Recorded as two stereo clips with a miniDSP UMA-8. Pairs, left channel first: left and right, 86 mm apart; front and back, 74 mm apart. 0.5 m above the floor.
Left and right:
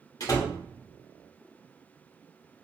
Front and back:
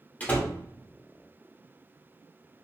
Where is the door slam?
60° left, 0.8 m.